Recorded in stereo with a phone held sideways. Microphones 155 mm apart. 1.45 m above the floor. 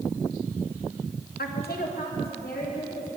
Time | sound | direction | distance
1.4 | a woman speaking | 80° left | 1.1 m